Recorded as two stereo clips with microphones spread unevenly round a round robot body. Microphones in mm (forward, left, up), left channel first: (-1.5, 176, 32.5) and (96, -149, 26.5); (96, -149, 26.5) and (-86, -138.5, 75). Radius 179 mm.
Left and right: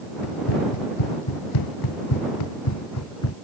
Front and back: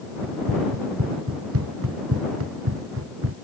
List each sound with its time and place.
0.2 s running footsteps: 130° left; by 3.4 s 160° left